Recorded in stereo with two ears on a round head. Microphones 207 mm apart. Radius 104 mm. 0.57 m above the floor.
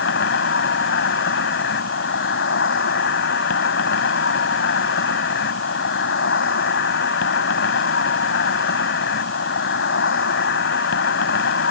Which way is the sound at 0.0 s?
60° left (ahead or behind).